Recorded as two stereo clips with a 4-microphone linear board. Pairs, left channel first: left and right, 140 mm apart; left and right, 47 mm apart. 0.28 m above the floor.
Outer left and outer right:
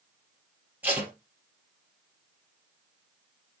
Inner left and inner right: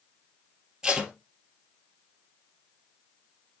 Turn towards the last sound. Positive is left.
turn(degrees=-10)  # may be behind; listen again after turning